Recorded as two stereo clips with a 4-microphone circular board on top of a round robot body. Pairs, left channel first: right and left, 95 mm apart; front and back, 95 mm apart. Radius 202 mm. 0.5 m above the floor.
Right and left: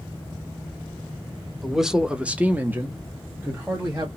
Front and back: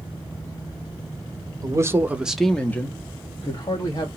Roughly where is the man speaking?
Behind.